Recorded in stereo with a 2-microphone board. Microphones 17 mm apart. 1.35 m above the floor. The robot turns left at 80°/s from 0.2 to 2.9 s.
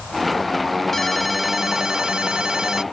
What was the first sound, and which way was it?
A ringtone, 25° left.